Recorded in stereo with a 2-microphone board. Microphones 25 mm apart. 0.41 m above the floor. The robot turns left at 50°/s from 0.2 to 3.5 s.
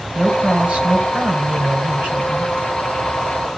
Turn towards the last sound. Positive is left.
turn(degrees=165)